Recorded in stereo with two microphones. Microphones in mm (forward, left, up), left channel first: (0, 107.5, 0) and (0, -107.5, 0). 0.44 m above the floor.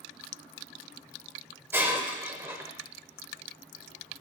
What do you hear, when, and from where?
1.7 s breaking glass: 10° right (ahead or behind), 1.1 m